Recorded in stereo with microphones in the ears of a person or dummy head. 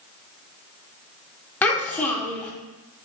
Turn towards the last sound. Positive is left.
turn(degrees=10)  # may be behind; listen again after turning